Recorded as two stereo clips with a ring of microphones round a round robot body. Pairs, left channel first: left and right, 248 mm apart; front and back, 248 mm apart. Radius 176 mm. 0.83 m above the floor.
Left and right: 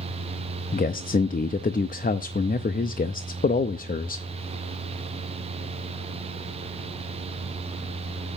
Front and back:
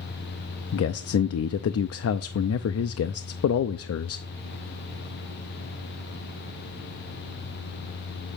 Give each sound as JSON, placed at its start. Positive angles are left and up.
{"t": 0.7, "sound": "a man speaking", "azimuth_deg": 30, "distance_m": 0.7}